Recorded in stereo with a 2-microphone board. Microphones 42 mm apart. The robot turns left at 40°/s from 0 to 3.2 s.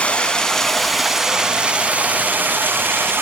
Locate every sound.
0.0 s running water: 35° left, 0.7 m; by 3.2 s 90° right, 0.7 m